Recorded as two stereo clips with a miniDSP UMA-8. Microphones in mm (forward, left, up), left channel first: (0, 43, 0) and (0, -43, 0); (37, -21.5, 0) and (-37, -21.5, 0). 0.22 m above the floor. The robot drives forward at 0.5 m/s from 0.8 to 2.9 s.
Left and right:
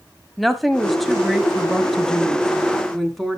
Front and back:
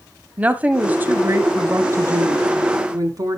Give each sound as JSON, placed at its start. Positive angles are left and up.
{"t": 0.4, "sound": "a woman speaking", "azimuth_deg": 175, "distance_m": 1.0}